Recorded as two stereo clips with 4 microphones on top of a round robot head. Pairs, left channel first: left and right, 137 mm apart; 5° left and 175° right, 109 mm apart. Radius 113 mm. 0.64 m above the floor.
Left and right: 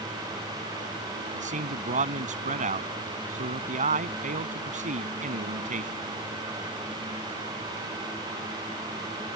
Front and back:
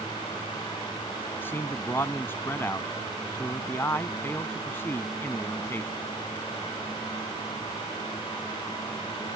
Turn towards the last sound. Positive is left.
turn(degrees=-70)